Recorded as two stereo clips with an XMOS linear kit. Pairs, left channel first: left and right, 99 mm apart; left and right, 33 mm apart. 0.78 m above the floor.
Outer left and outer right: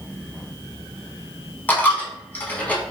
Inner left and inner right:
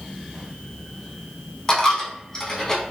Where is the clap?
No clap in this recording.